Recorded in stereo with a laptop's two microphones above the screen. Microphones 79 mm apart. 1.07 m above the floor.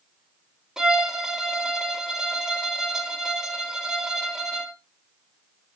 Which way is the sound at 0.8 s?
5° right (ahead or behind).